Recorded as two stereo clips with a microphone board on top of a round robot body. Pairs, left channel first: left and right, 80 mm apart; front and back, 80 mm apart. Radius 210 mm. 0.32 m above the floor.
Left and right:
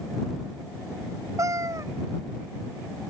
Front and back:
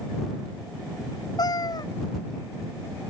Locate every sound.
1.4 s a cat meowing: 40° right